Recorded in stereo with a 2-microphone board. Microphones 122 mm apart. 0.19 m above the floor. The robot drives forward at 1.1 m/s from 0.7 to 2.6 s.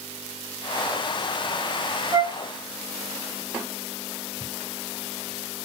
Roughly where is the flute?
Right.